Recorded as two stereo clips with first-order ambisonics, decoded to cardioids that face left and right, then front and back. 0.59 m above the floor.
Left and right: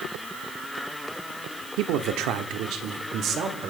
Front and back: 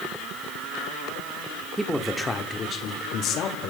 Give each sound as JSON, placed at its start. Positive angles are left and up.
{"t": 1.8, "sound": "a man speaking", "azimuth_deg": -100, "distance_m": 1.0}